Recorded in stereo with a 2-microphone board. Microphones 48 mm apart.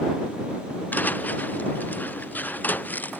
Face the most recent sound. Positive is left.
turn(degrees=40)  # may be behind; listen again after turning